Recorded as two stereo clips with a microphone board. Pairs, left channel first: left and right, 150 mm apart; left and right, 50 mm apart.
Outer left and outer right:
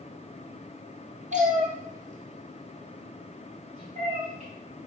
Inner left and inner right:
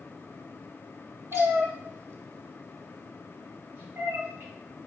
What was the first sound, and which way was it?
A cat meowing, 55° right (ahead or behind).